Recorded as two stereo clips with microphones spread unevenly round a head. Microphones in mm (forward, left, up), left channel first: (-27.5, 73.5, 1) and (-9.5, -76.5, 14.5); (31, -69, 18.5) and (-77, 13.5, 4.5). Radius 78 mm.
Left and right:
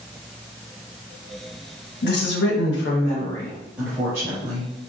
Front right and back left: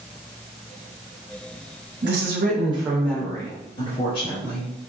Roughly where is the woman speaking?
Behind left.